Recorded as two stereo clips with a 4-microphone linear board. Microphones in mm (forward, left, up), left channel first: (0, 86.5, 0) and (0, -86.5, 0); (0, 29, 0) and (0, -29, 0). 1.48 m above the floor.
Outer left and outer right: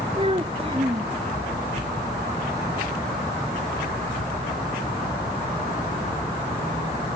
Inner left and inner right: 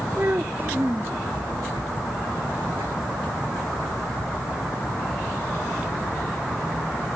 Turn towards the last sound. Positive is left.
turn(degrees=-35)  # may be behind; listen again after turning